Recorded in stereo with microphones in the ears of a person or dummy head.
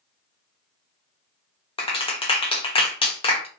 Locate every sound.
1.8 s a clap: 30° left (ahead or behind), 0.9 m